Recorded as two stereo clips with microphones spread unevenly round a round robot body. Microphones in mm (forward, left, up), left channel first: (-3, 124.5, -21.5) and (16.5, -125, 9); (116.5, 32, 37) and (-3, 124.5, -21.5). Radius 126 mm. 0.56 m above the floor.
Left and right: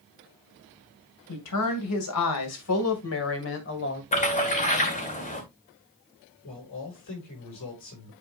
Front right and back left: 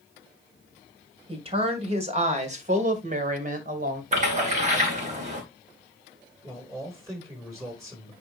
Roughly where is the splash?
Behind left.